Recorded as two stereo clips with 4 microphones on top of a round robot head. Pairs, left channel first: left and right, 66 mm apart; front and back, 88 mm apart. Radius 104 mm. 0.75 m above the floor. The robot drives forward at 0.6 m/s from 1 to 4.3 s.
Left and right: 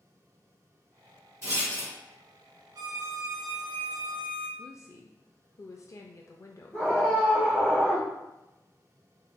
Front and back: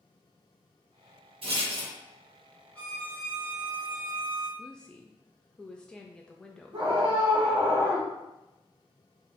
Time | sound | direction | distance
1.4 | a rattle | 150° right | 1.6 m
2.8 | a violin | 75° right | 0.9 m
4.6 | a woman speaking | 80° left | 0.5 m
6.7 | a scream | 160° left | 1.7 m